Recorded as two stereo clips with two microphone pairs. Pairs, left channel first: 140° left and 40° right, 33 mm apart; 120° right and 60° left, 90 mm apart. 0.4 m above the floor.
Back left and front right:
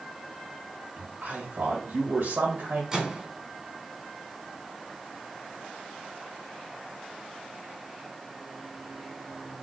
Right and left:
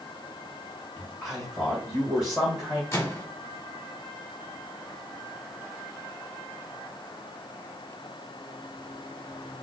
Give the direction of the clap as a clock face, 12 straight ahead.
No clap in this recording.